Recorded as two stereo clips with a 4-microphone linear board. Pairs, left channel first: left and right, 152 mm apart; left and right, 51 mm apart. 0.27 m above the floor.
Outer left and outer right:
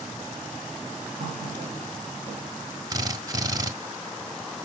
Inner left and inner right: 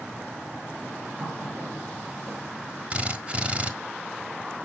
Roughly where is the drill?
Right.